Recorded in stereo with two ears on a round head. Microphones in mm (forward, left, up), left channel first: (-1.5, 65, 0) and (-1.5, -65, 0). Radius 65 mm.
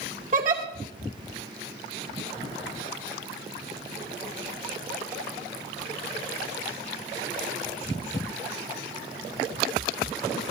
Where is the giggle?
55° right (ahead or behind), 2.5 m.